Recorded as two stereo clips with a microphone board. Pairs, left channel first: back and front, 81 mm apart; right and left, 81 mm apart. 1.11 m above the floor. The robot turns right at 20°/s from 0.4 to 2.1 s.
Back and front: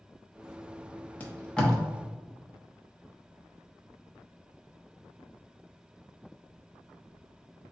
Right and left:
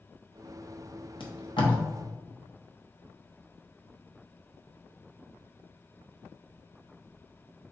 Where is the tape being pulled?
105° right, 0.8 m; by 1.8 s 95° right, 0.8 m.